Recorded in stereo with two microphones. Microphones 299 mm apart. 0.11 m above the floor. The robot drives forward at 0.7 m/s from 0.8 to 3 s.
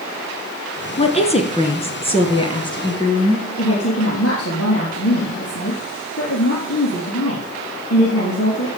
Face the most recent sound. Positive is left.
turn(degrees=50)  # may be behind; listen again after turning